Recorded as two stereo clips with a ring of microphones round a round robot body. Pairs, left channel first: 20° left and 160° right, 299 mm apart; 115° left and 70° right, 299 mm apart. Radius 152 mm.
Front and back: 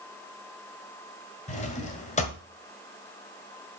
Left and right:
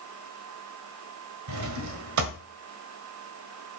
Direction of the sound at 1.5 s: 45° right.